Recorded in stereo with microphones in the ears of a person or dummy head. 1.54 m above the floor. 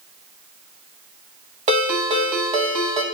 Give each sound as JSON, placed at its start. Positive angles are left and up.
{"t": 1.7, "sound": "a ringtone", "side_deg": -40, "distance_m": 1.2}